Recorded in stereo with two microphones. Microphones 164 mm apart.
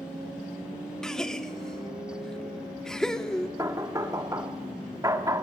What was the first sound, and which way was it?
A gasp, 5° left (ahead or behind).